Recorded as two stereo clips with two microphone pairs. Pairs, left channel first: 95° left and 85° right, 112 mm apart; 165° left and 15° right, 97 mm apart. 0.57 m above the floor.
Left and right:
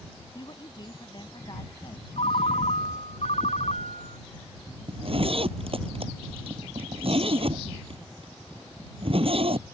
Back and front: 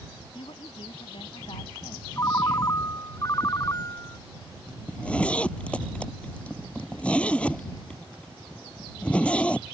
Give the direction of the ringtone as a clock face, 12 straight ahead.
8 o'clock.